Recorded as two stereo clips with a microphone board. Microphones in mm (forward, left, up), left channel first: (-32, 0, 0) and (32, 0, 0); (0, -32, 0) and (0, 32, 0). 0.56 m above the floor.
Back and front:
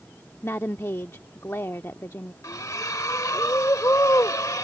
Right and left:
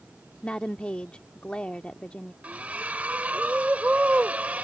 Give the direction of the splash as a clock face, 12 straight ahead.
7 o'clock.